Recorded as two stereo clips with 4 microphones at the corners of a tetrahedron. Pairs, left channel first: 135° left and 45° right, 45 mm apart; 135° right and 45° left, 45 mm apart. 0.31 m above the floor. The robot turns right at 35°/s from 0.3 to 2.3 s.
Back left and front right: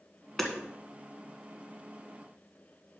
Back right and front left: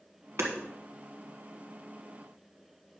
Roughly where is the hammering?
Ahead left.